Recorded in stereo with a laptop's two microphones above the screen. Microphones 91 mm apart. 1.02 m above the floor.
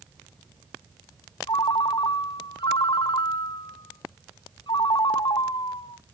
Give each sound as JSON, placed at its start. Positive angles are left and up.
{"t": 1.5, "sound": "a ringtone", "side_deg": 55, "distance_m": 0.8}